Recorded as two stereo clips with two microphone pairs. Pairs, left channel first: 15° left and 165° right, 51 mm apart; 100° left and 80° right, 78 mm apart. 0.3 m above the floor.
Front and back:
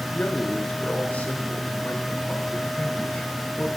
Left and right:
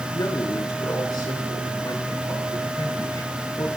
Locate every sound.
0.1 s a man speaking: 70° left, 5 m